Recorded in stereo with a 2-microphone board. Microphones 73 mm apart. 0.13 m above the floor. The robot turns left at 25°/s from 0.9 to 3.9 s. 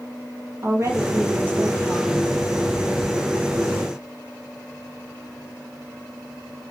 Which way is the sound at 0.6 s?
140° right.